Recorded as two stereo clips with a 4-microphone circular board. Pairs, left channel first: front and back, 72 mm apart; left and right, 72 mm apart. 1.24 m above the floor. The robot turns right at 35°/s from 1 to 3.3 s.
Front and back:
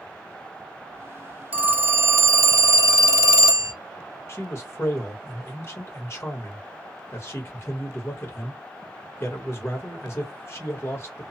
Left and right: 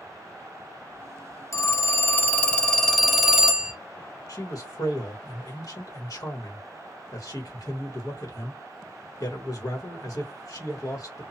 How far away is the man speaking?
About 1.3 m.